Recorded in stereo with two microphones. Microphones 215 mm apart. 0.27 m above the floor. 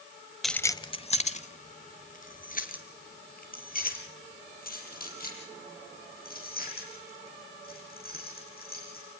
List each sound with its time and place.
0.4 s keys jangling: centre (ahead or behind), 0.7 m; by 9.0 s 45° left (ahead or behind), 11 m